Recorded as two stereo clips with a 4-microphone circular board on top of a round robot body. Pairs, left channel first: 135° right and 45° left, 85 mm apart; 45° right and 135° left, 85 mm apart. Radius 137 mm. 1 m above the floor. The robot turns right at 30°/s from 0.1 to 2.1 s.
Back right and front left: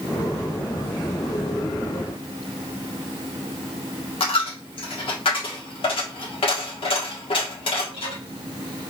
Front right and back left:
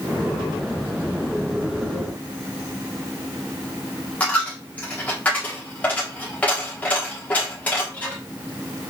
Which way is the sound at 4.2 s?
120° right.